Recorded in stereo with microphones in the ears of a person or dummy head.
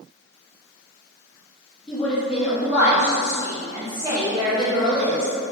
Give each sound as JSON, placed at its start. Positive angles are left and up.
{"t": 1.9, "sound": "a woman speaking", "side_deg": 5, "distance_m": 2.0}